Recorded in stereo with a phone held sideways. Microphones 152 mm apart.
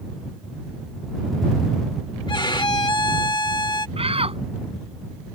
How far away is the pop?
No pop in this recording.